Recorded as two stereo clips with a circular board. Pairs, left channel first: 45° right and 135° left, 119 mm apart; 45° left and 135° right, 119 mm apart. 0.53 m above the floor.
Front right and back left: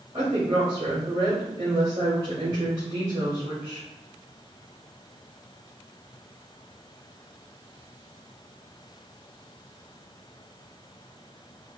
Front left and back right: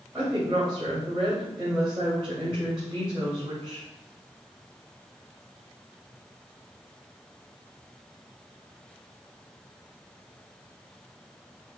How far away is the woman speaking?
About 1.9 m.